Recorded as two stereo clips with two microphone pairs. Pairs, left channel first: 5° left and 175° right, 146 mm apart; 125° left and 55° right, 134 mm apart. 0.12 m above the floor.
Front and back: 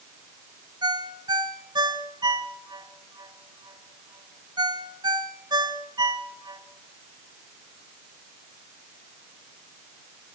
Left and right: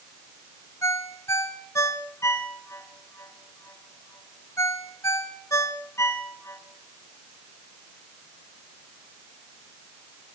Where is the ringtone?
170° left, 1.2 m.